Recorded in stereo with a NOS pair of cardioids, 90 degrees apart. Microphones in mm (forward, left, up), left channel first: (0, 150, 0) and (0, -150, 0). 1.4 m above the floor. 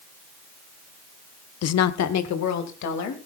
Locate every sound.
1.6 s a woman speaking: 55° left, 0.7 m; by 3.3 s 70° left, 3 m